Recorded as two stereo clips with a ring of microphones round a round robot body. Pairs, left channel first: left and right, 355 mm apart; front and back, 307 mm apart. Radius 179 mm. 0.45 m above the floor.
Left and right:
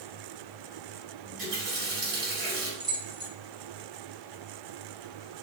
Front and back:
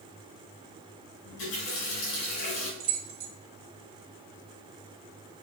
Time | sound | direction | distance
1.2 | a running tap | 35° right | 2 m
2.8 | keys jangling | 165° right | 0.9 m